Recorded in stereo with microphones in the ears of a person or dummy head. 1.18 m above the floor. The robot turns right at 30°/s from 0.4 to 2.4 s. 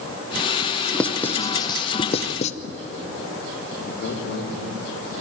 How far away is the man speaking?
About 3 m.